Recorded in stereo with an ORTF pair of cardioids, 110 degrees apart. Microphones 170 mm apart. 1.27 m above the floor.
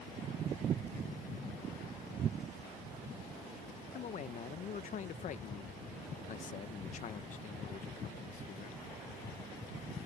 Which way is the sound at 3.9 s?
50° left.